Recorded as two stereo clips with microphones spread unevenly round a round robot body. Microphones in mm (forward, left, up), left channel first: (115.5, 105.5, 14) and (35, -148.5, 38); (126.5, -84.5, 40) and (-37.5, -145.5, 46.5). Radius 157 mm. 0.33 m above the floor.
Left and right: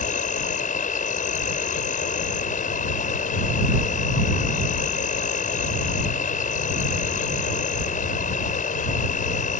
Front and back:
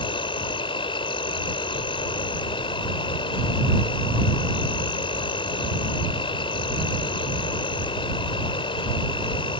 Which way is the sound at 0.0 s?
50° left.